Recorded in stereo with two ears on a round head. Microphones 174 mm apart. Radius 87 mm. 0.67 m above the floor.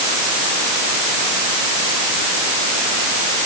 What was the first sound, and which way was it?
Only background noise.